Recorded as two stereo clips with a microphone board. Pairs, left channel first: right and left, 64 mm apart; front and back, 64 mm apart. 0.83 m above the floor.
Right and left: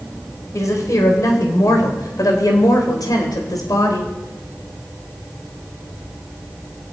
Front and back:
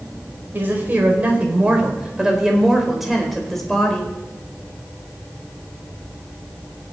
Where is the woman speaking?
125° right, 4.5 m; by 4.1 s 80° right, 4 m.